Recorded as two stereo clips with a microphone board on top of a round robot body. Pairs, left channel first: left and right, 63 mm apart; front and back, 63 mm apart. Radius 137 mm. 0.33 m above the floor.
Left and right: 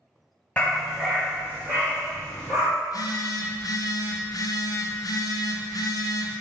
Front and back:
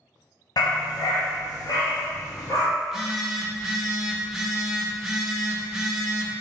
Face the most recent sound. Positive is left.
turn(degrees=95)